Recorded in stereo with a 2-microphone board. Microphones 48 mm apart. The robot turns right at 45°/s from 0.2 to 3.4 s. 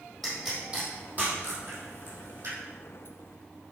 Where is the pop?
10° left (ahead or behind), 4.5 m; by 2.6 s 85° right, 4.5 m.